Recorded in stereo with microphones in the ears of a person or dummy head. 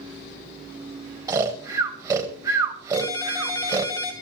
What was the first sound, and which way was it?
Snoring, 15° right (ahead or behind).